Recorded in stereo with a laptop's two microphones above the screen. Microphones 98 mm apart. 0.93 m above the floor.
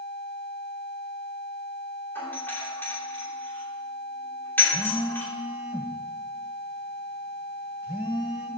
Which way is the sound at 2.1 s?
20° left (ahead or behind).